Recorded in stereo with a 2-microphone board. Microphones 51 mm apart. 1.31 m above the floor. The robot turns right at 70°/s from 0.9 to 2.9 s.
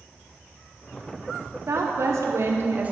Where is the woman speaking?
120° right, 0.8 m; by 2.9 s 30° right, 0.8 m.